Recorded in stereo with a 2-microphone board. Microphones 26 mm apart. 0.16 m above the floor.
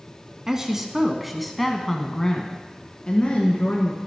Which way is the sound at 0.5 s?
20° right (ahead or behind).